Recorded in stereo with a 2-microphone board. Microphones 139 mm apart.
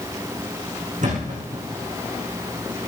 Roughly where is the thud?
Right.